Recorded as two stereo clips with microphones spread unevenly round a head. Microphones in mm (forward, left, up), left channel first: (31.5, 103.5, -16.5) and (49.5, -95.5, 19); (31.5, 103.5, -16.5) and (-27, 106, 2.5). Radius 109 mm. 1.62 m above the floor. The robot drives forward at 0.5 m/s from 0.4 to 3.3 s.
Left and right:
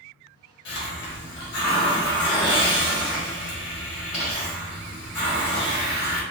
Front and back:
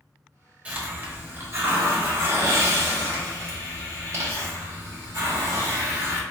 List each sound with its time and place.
0.7 s a hiss: 130° left, 1.2 m; by 6.2 s 160° left, 2 m